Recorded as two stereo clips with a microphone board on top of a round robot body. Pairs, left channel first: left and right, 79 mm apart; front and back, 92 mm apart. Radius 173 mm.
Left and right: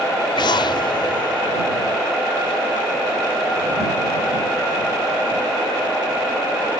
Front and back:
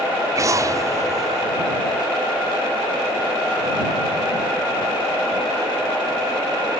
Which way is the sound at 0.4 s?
120° left.